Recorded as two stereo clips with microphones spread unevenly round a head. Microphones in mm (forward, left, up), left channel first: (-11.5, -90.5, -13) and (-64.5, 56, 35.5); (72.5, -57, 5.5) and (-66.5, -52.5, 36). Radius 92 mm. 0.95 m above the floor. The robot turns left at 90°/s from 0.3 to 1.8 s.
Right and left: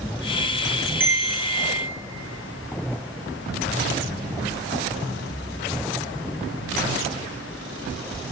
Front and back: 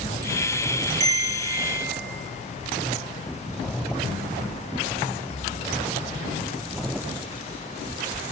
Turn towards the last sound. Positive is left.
turn(degrees=130)